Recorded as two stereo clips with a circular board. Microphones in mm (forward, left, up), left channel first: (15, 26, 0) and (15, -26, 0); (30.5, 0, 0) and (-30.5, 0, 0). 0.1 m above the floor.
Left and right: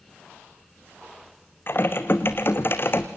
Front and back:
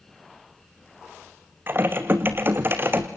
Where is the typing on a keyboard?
130° left, 1.7 m.